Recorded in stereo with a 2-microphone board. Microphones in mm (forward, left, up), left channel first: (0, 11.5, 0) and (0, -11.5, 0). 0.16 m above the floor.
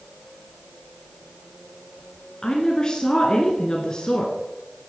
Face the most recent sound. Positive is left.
turn(degrees=30)  # may be behind; listen again after turning